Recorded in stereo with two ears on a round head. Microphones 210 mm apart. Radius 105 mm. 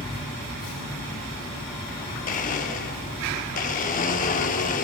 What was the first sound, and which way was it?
A blender, 35° left (ahead or behind).